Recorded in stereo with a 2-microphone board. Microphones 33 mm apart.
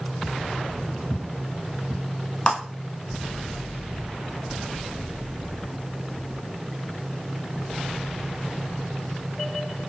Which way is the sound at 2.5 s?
35° left (ahead or behind).